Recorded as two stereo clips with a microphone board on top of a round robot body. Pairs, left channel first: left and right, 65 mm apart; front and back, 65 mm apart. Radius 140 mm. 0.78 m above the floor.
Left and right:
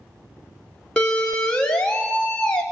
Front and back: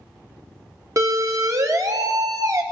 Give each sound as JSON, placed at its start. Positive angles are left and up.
{"t": 1.0, "sound": "a siren", "azimuth_deg": 165, "distance_m": 2.5}